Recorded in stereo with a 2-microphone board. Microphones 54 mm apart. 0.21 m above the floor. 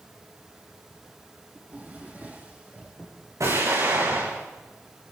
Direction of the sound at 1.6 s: 30° right (ahead or behind).